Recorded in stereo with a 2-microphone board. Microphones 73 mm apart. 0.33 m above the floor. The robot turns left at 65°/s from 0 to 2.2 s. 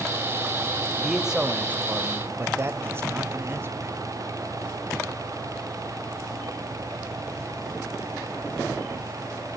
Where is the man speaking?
Straight ahead, 1.5 m; by 3.9 s 75° right, 1.5 m.